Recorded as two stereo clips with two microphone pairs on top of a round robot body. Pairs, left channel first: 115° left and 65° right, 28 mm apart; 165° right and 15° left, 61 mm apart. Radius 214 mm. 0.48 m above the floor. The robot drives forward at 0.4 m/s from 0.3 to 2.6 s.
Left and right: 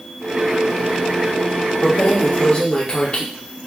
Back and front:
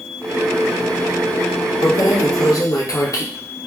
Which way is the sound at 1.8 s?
175° left.